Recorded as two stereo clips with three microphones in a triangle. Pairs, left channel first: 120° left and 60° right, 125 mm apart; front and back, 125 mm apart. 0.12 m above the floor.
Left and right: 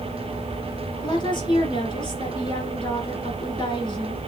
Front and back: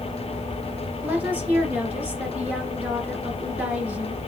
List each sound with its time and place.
1.0 s a woman speaking: 110° left, 1.8 m